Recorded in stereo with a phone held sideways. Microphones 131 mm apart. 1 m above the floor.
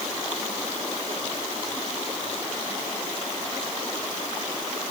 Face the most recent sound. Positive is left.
No sound to turn to.